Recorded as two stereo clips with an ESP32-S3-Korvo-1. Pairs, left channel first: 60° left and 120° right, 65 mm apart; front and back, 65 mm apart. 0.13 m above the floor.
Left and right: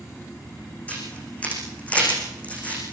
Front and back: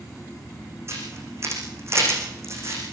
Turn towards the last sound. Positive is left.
turn(degrees=130)